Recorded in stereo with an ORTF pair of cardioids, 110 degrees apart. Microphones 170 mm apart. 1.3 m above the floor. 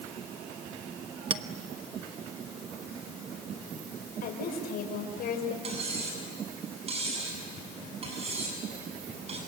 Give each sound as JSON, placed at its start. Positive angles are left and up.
{"t": 1.3, "sound": "a clink", "azimuth_deg": -30, "distance_m": 1.1}
{"t": 4.2, "sound": "a woman speaking", "azimuth_deg": 60, "distance_m": 5.0}
{"t": 5.6, "sound": "cutlery clinking", "azimuth_deg": -35, "distance_m": 7.5}